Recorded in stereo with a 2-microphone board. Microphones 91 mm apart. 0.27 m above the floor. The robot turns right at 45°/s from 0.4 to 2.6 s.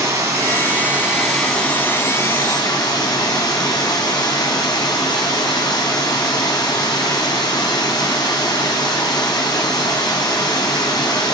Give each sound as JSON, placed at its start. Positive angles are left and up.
{"t": 0.0, "sound": "running water", "azimuth_deg": -40, "distance_m": 1.7}